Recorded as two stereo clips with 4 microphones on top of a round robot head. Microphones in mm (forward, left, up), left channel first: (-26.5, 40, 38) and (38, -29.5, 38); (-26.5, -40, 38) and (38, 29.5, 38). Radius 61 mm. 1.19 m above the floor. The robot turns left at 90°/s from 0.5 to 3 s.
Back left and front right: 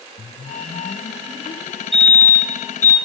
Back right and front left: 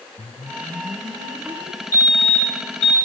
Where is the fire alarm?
80° right, 6.5 m; by 3.0 s 175° right, 6.5 m.